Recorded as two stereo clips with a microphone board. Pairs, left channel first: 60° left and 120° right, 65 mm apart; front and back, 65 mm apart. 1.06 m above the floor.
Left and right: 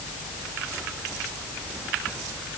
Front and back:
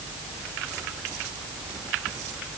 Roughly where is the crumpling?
I don't hear crumpling.